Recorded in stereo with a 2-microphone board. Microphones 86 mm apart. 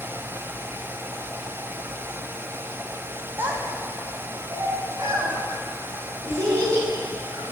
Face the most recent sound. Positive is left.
turn(degrees=-40)  # may be behind; listen again after turning